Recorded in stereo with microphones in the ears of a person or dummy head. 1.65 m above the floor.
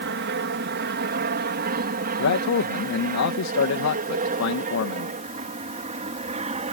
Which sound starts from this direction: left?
A man speaking, at 2.2 s.